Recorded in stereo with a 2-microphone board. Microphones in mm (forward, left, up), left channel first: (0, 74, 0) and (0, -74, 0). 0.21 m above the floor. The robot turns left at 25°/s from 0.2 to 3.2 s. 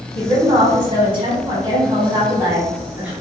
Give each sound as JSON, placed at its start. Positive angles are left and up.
{"t": 0.1, "sound": "a woman speaking", "azimuth_deg": -90, "distance_m": 1.1}